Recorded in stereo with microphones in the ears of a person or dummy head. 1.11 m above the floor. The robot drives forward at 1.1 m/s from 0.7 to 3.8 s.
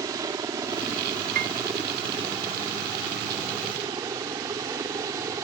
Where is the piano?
45° right (ahead or behind); by 1.6 s 35° right (ahead or behind).